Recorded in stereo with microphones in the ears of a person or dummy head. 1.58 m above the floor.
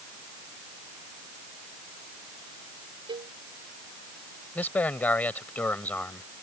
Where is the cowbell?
30° right (ahead or behind).